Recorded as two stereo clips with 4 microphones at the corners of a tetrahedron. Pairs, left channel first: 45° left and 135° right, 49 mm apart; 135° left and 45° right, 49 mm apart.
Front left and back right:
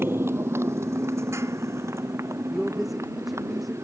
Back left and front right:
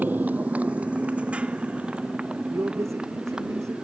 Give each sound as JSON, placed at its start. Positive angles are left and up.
{"t": 0.0, "sound": "a motorcycle", "azimuth_deg": -95}
{"t": 2.5, "sound": "a man speaking", "azimuth_deg": -45}